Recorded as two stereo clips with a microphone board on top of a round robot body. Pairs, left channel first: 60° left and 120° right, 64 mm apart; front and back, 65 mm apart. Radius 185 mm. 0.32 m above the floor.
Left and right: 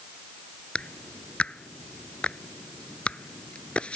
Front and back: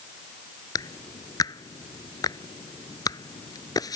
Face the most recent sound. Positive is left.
turn(degrees=-10)